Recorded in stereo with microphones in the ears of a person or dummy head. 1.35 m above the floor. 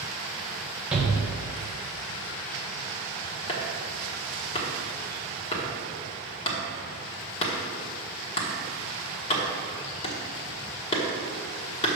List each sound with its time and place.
0.9 s a shout: 5° right (ahead or behind), 1.6 m
3.5 s chopping: 35° left (ahead or behind), 1.3 m